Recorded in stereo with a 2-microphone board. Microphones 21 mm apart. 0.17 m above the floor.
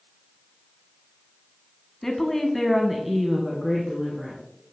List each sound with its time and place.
2.0 s a woman speaking: 15° left (ahead or behind), 1.1 m; by 4.4 s 20° right (ahead or behind), 2 m